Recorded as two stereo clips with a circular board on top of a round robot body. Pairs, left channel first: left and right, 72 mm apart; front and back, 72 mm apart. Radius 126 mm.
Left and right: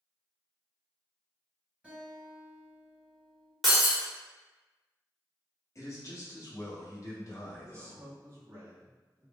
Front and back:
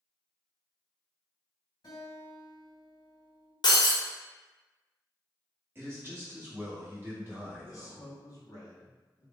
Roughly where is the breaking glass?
Ahead.